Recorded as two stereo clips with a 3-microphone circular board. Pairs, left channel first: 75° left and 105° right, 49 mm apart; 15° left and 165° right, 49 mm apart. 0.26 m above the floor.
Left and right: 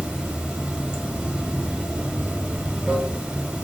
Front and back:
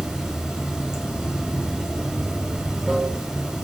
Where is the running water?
125° right, 0.9 m.